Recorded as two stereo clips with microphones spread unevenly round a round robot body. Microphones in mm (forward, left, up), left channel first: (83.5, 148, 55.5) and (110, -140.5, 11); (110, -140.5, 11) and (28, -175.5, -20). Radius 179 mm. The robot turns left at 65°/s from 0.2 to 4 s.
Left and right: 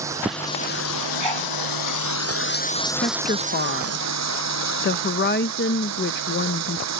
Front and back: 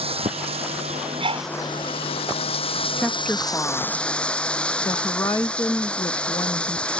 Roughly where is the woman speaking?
Behind.